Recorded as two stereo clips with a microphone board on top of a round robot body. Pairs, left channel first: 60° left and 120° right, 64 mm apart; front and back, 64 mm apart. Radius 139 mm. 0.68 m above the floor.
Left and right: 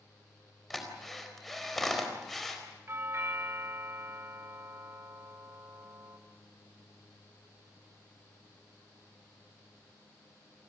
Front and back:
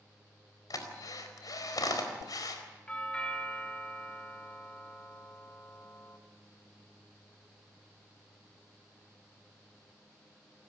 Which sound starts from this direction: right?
A doorbell, at 2.9 s.